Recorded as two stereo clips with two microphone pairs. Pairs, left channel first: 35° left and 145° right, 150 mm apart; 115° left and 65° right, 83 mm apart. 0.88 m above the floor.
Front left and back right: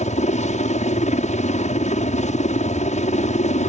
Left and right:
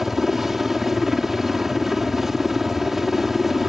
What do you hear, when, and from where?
0.0 s a helicopter: 20° left